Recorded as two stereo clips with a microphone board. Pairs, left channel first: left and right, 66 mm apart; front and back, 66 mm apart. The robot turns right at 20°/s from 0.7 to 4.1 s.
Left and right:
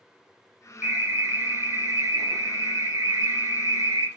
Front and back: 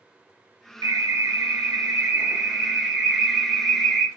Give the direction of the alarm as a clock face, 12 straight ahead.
5 o'clock.